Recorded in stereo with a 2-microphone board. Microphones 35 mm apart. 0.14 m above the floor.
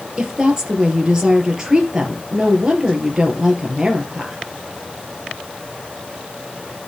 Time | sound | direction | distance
0.2 | a woman speaking | 20° right (ahead or behind) | 2.5 m